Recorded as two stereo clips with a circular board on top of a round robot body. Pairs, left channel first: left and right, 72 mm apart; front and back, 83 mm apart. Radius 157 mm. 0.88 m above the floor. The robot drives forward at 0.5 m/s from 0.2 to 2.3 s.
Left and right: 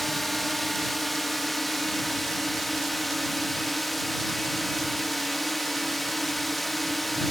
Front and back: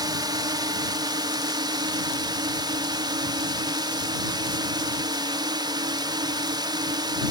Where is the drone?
175° left; by 7.3 s straight behind.